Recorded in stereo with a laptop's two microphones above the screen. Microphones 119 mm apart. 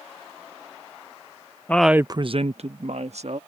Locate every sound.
1.7 s a woman speaking: 15° left (ahead or behind); by 3.4 s 65° right (ahead or behind)